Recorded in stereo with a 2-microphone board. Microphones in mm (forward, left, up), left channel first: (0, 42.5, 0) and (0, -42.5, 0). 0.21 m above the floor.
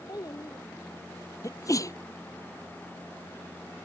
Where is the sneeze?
40° left (ahead or behind).